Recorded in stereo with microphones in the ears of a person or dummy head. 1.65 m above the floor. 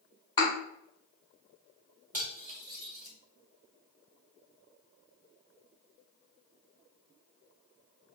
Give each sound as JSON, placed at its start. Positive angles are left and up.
{"t": 0.4, "sound": "a thud", "side_deg": 30, "distance_m": 1.6}
{"t": 2.1, "sound": "cutlery clinking", "side_deg": -10, "distance_m": 1.6}